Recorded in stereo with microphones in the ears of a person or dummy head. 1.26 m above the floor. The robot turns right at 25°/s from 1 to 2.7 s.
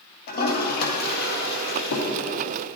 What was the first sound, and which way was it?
A toilet flushing, 65° left (ahead or behind).